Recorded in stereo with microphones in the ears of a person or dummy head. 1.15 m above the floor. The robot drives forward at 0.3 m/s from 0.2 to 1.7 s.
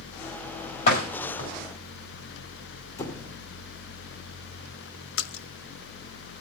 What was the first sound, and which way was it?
A door slam, 50° left (ahead or behind).